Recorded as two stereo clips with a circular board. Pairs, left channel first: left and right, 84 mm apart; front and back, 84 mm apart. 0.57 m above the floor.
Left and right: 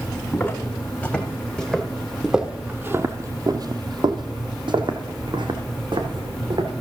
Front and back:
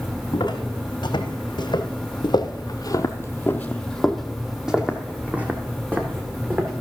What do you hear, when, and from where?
0.3 s footsteps: 25° left, 1.9 m; by 6.7 s 120° right, 2.5 m